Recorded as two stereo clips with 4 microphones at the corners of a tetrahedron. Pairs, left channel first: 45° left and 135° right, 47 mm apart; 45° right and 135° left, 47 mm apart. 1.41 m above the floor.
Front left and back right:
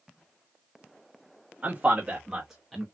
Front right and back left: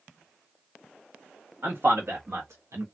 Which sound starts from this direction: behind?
A man speaking, at 1.6 s.